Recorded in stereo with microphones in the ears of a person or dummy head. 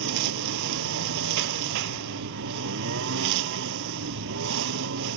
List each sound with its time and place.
0.0 s a lawn mower: 60° right (ahead or behind)